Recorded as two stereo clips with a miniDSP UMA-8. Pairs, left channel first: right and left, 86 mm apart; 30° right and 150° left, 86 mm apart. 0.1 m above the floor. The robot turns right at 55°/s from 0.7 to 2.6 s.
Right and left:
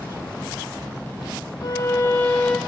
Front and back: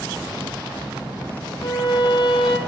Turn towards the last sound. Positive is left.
turn(degrees=-5)